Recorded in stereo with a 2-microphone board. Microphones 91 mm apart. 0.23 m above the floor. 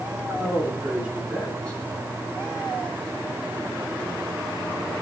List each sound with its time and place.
0.3 s a man speaking: 35° right (ahead or behind), 2.5 m; by 2.1 s 30° left (ahead or behind), 1.8 m